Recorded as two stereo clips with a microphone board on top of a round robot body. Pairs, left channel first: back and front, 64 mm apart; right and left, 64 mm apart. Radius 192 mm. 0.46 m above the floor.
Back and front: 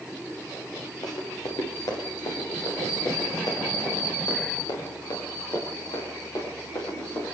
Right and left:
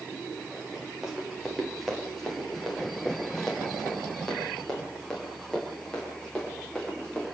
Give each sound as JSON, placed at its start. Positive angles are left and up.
{"t": 1.0, "sound": "running footsteps", "azimuth_deg": 170, "distance_m": 5.0}